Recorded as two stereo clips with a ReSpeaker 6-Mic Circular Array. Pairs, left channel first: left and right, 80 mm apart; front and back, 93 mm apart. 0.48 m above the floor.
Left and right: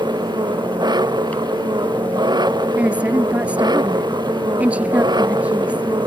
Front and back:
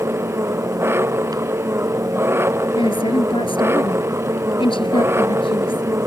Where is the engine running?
120° right.